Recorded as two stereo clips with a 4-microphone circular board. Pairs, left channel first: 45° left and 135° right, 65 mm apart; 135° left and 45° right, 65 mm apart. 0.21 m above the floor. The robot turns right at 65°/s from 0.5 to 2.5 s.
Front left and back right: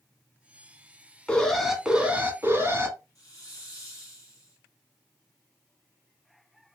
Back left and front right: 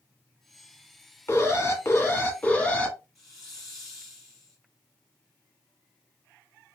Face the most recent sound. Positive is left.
turn(degrees=45)